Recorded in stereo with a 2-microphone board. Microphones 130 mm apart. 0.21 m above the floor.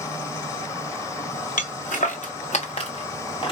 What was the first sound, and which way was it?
Footsteps, 85° left.